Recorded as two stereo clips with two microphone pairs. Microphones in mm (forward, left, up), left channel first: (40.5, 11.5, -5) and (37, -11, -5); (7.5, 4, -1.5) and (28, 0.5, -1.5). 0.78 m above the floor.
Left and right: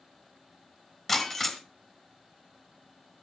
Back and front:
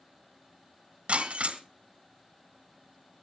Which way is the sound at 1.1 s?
10° left.